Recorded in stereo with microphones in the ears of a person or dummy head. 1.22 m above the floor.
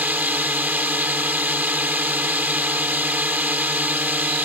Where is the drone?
10° right (ahead or behind).